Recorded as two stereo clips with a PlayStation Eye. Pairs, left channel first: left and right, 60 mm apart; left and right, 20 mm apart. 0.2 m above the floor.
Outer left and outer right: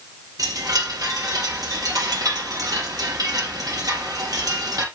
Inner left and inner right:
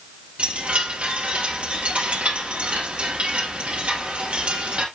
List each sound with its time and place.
0.4 s a chime: 75° right (ahead or behind), 2.5 m